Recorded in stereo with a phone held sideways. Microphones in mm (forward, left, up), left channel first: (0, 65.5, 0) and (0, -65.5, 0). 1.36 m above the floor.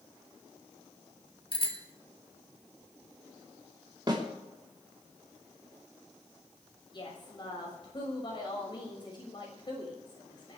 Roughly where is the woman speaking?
Left.